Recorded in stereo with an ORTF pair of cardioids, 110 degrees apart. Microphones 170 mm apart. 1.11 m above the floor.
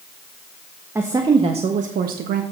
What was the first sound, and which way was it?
A woman speaking, 15° right.